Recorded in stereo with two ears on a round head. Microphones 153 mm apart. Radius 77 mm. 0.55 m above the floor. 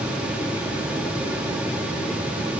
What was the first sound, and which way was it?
Only background noise.